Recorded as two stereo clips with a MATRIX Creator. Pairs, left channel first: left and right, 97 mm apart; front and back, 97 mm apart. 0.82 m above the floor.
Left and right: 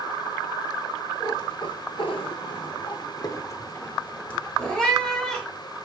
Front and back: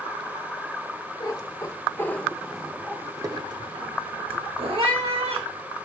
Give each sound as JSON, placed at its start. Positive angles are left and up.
{"t": 1.2, "sound": "a cat meowing", "azimuth_deg": 45, "distance_m": 1.0}